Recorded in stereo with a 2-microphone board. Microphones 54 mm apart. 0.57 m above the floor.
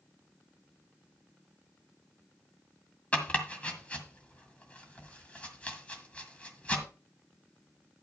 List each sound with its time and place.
3.1 s chopping: 25° left (ahead or behind), 1.8 m